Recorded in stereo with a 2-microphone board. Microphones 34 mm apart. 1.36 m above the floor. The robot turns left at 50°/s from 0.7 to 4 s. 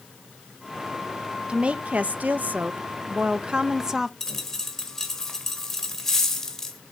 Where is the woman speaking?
40° right, 0.5 m; by 4.1 s 165° right, 0.5 m.